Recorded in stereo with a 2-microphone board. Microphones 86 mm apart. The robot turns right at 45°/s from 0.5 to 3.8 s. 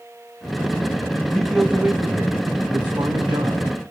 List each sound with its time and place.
1.3 s a man speaking: 175° left, 2.5 m; by 3.7 s 75° right, 2.5 m